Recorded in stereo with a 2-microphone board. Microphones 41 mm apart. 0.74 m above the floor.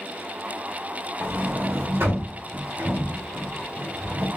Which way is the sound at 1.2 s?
80° right.